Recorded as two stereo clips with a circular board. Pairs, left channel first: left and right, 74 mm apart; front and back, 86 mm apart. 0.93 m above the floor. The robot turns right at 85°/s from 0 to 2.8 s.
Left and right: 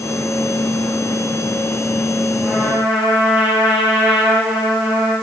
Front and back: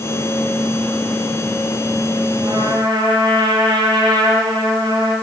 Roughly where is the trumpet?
Behind.